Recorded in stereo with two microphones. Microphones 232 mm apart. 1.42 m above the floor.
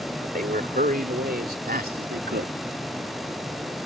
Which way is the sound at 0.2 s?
40° right (ahead or behind).